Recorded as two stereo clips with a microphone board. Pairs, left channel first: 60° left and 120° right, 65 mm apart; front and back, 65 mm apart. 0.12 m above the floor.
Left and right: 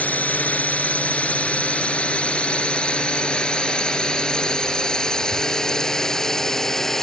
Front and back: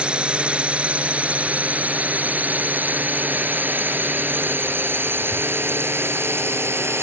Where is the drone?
115° left; by 7.0 s 145° left.